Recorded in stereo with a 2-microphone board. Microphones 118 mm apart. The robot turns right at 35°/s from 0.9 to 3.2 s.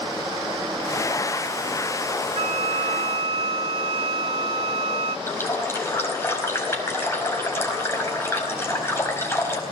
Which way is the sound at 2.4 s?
85° right.